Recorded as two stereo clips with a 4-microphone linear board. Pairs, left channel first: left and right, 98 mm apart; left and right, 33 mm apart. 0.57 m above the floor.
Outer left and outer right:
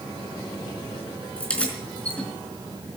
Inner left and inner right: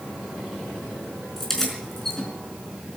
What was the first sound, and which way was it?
Keys jangling, 10° left (ahead or behind).